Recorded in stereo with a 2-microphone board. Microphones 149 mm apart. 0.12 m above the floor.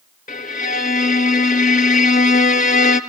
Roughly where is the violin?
Left.